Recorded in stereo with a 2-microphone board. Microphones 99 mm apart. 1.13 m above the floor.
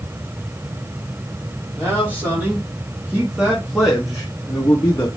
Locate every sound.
1.8 s a man speaking: 20° right (ahead or behind), 3 m; by 5.1 s 30° left (ahead or behind), 1.2 m